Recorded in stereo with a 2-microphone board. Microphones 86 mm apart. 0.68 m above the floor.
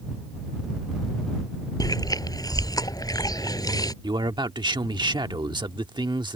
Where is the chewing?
50° left (ahead or behind).